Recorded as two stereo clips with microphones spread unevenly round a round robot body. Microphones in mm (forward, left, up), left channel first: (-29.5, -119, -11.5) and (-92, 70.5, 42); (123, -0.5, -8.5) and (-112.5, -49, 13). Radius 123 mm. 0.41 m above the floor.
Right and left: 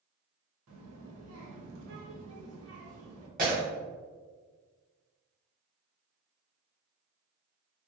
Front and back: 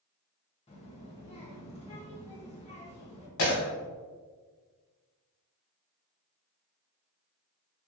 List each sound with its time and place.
0.7 s a child speaking: 75° left, 0.8 m
3.4 s breaking glass: 50° left, 1.2 m